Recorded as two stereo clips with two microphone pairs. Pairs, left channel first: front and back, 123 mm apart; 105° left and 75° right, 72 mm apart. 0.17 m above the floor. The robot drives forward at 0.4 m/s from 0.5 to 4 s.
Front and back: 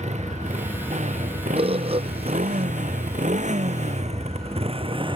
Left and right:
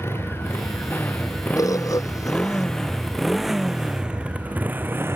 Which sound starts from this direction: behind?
A motorcycle, at 0.0 s.